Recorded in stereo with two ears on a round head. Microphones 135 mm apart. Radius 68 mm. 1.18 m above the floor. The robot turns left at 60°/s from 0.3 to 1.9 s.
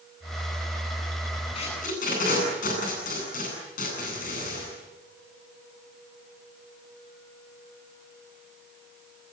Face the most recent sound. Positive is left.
turn(degrees=60)  # may be behind; listen again after turning